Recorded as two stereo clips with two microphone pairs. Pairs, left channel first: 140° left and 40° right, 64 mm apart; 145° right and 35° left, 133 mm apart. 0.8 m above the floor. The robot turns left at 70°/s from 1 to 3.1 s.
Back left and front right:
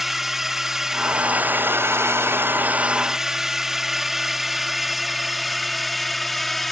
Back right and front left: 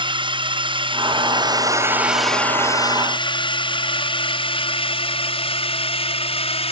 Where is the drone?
45° left; by 6.7 s 135° right.